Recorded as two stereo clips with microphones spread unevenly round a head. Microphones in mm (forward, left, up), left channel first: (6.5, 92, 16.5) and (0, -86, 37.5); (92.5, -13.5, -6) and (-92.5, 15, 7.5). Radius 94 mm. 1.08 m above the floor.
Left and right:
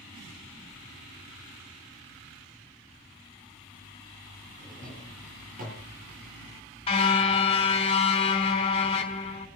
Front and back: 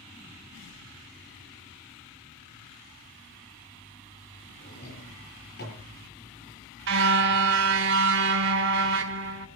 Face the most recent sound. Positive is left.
turn(degrees=150)